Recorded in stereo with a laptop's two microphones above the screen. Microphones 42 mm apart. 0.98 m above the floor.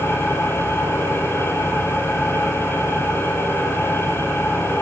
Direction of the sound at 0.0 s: 85° left.